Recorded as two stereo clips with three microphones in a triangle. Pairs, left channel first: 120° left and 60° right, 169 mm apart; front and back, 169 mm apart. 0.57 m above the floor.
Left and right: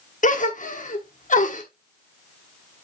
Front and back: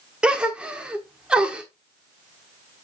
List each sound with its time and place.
0.2 s a gasp: 95° left, 1.1 m